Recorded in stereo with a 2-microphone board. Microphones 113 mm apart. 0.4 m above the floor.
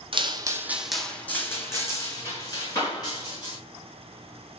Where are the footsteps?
50° right (ahead or behind), 0.6 m; by 3.6 s 40° left (ahead or behind), 2.5 m.